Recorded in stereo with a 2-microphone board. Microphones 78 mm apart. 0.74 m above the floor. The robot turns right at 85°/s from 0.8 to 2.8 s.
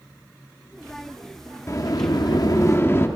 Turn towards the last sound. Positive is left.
turn(degrees=140)